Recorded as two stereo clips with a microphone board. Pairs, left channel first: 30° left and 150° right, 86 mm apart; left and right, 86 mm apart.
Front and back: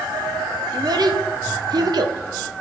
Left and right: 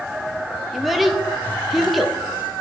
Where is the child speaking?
Straight behind, 0.7 m.